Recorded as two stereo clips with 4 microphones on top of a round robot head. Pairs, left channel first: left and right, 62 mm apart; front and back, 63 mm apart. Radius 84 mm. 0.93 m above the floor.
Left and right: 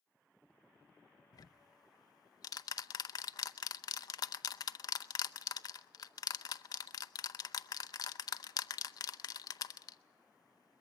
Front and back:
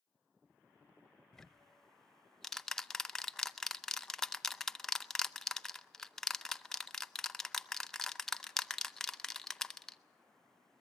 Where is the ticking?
85° left, 0.7 m.